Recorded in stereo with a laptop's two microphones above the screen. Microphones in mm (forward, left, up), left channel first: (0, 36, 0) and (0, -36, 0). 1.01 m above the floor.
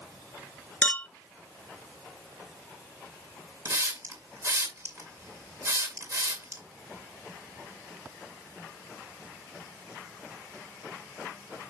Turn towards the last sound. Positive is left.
turn(degrees=-45)  # may be behind; listen again after turning